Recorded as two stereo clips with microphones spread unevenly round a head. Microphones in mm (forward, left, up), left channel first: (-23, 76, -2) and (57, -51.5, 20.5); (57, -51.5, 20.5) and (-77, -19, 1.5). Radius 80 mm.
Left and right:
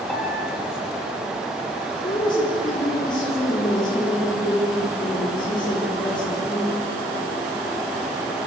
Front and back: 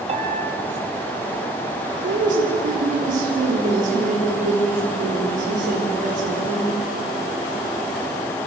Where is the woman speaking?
175° right, 4 m.